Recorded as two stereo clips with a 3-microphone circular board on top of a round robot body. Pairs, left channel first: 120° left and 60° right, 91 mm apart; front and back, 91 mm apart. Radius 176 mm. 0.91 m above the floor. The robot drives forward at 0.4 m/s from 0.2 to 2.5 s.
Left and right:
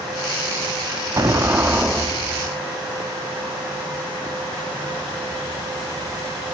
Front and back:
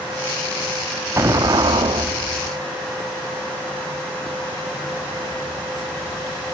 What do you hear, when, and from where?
1.2 s an explosion: 120° right, 0.6 m; by 2.6 s 150° right, 1.0 m